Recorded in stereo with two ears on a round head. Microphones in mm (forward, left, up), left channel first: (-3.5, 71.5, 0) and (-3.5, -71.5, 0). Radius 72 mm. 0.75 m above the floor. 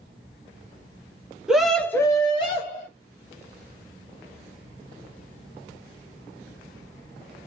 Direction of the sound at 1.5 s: 5° right (ahead or behind).